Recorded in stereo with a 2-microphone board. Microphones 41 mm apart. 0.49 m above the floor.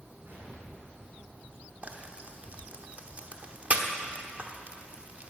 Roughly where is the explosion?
Right.